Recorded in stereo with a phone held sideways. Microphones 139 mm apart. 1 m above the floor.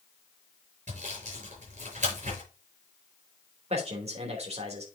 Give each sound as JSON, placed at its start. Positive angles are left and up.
{"t": 0.9, "sound": "sawing", "side_deg": -65, "distance_m": 5.5}
{"t": 3.7, "sound": "a man speaking", "side_deg": -50, "distance_m": 3.0}